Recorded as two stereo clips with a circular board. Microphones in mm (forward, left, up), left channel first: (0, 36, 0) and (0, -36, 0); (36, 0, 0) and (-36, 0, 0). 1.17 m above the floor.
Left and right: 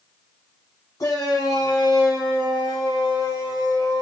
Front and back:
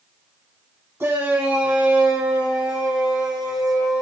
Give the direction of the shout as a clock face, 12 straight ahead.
8 o'clock.